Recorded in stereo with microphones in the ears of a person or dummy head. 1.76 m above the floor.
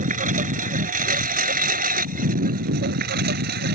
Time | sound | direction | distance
0.0 | a lawn mower | 30° right (ahead or behind) | ?